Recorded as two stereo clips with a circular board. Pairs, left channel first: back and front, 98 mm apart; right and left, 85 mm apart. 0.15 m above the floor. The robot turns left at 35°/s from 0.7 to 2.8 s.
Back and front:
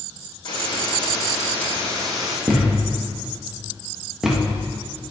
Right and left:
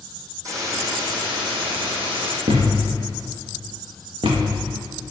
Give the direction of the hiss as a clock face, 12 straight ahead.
7 o'clock.